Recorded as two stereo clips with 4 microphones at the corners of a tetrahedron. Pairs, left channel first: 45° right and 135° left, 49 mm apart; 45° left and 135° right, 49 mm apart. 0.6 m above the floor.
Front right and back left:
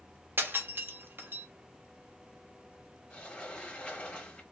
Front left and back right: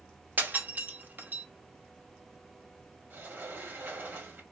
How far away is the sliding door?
About 1.4 m.